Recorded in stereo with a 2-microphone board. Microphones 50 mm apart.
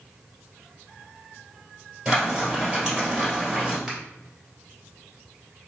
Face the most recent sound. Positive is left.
turn(degrees=-10)  # may be behind; listen again after turning